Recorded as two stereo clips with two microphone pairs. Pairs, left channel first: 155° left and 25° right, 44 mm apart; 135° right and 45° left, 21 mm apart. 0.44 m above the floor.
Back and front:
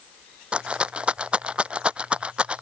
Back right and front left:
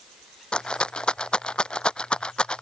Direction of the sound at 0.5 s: 90° right.